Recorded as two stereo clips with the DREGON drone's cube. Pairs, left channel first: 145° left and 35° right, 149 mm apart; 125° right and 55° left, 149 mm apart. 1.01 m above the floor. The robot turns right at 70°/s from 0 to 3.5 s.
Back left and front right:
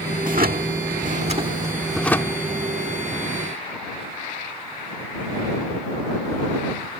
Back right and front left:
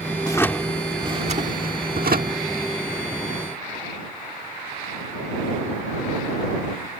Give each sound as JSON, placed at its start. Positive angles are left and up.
{"t": 0.2, "sound": "a drawer", "azimuth_deg": -65}